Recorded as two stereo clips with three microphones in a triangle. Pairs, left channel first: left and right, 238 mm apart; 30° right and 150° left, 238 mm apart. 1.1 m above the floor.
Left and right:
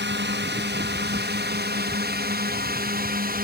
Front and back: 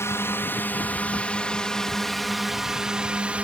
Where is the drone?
105° right; by 3.5 s 125° right.